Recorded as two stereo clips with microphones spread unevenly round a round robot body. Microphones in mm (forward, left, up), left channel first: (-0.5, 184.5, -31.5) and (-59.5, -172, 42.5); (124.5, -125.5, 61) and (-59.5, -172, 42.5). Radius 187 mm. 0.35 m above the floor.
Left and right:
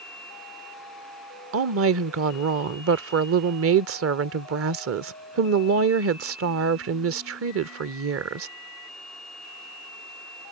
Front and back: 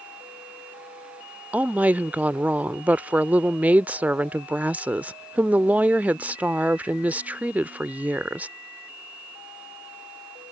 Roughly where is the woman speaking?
Right.